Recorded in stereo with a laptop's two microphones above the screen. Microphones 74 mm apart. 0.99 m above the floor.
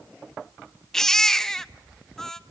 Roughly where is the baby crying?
Centre.